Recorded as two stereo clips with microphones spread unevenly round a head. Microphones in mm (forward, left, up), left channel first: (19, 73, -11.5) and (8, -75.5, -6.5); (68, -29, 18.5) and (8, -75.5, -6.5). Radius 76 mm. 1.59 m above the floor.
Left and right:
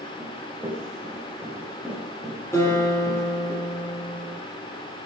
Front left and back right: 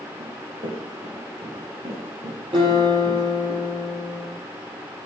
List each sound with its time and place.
0.2 s running footsteps: 170° right, 7.5 m; by 3.5 s 155° left, 7 m
2.5 s a guitar: 160° left, 9.5 m